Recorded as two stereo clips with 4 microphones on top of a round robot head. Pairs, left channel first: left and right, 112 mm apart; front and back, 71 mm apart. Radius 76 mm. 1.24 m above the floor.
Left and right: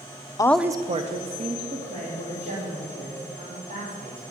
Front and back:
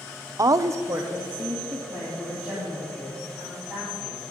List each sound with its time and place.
0.4 s a woman speaking: 145° left, 0.5 m; by 4.2 s 90° right, 5.5 m